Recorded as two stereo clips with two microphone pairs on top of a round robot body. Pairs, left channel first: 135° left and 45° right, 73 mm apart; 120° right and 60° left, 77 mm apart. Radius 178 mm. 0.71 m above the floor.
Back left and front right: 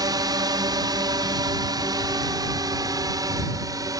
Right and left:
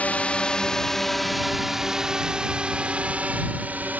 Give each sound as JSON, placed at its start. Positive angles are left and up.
{"t": 0.0, "sound": "a drone", "azimuth_deg": -50}